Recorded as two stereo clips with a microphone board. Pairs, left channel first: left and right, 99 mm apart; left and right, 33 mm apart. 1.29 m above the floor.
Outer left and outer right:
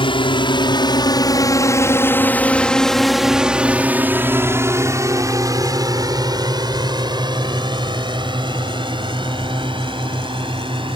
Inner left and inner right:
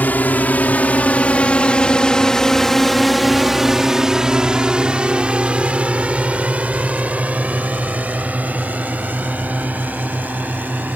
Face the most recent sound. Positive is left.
turn(degrees=-55)  # may be behind; listen again after turning